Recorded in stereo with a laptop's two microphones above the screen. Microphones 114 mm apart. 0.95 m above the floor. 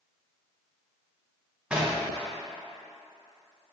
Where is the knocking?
10° right (ahead or behind), 0.9 m.